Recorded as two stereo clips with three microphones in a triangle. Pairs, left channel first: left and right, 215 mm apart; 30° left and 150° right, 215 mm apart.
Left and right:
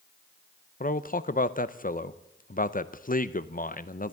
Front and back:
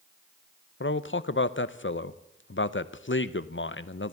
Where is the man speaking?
45° left, 0.6 m.